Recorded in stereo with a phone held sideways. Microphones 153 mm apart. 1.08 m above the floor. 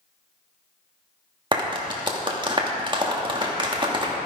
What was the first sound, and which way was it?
A clap, 30° right (ahead or behind).